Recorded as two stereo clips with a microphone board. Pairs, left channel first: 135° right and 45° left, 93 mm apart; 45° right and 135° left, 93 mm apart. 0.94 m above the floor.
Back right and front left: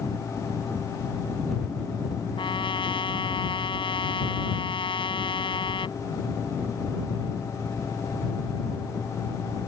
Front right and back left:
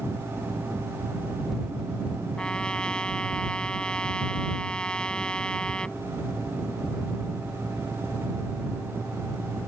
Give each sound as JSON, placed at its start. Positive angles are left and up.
{"t": 2.4, "sound": "a trumpet", "azimuth_deg": -125}